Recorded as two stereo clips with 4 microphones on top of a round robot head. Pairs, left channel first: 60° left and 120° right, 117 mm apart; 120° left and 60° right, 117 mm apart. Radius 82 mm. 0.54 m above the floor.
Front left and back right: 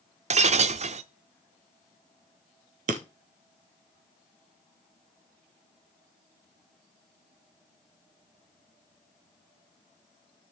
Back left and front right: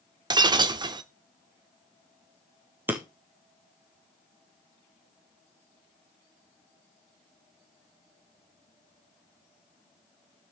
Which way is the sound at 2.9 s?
135° right.